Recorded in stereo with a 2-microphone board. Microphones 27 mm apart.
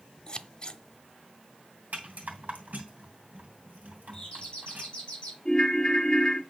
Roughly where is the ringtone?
Left.